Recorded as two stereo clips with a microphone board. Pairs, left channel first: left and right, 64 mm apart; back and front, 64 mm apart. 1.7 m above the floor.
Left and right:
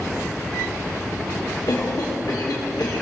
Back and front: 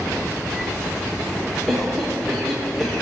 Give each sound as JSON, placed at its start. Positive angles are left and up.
{"t": 1.7, "sound": "a cough", "azimuth_deg": 95, "distance_m": 2.0}